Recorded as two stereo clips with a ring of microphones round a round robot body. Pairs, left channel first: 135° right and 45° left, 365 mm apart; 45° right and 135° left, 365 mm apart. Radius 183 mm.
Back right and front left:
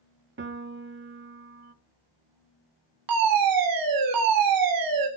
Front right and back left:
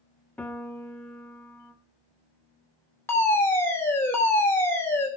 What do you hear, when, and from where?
0.4 s a piano: 35° left, 1.1 m
3.1 s a fire alarm: 35° left, 3 m